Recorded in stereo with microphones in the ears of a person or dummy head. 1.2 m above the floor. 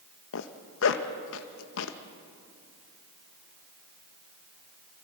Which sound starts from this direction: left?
A zipper, at 0.3 s.